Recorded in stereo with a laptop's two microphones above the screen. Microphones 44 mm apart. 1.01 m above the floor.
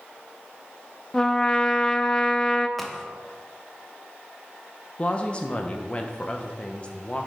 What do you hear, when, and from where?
1.1 s a trumpet: 15° left (ahead or behind), 0.5 m
2.8 s a crack: 5° left (ahead or behind), 0.7 m
5.0 s a woman speaking: 25° left (ahead or behind), 0.8 m